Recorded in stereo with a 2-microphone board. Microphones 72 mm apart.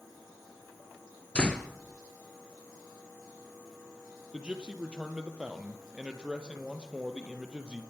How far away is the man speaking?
About 3.5 m.